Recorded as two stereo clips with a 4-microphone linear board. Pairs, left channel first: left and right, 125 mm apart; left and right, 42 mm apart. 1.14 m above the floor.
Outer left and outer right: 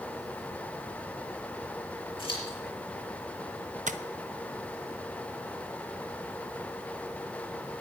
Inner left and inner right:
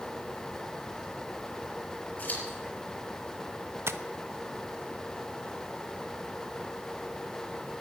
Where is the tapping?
75° right (ahead or behind), 0.6 m.